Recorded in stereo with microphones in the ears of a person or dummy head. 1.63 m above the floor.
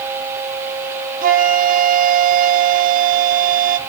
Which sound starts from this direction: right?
A flute, at 1.2 s.